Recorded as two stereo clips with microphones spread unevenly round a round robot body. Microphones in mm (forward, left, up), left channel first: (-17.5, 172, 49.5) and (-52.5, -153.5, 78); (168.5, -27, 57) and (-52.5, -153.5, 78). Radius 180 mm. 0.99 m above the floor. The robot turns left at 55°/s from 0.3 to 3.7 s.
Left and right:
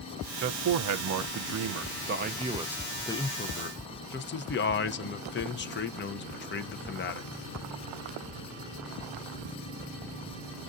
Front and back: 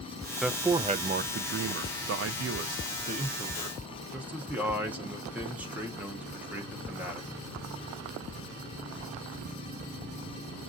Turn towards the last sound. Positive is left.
turn(degrees=120)